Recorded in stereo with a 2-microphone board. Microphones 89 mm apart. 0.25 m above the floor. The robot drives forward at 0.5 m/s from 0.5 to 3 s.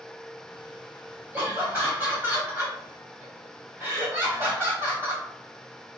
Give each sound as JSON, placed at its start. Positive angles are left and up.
{"t": 1.3, "sound": "laughter", "side_deg": -20, "distance_m": 1.5}